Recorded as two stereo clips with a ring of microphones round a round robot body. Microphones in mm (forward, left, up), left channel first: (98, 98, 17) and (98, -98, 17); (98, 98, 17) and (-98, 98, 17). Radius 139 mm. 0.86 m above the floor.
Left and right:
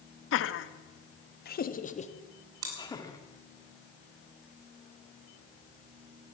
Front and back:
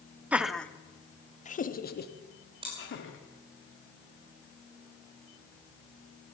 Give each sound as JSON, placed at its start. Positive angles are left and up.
{"t": 0.3, "sound": "laughter", "azimuth_deg": 95, "distance_m": 1.1}
{"t": 2.6, "sound": "chewing", "azimuth_deg": -105, "distance_m": 3.5}